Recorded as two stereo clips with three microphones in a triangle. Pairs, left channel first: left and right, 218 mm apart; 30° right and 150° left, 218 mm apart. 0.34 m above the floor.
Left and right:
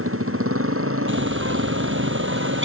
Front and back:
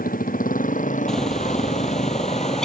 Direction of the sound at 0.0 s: 80° right.